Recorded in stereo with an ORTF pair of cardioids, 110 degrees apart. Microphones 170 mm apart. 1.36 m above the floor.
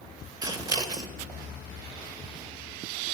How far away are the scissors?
About 0.9 m.